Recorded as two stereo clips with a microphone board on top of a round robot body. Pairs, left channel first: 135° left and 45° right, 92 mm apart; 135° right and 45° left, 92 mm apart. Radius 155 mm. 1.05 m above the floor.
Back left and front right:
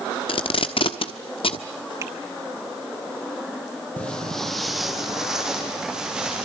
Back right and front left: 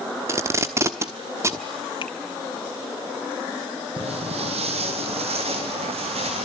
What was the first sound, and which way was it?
Tape being pulled, 105° left.